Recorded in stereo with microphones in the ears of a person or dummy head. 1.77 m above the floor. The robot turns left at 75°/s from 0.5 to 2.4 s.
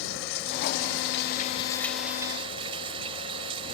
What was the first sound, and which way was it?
Running water, 115° left.